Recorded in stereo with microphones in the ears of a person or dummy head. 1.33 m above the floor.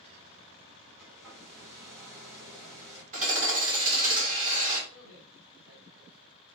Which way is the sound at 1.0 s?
10° right (ahead or behind).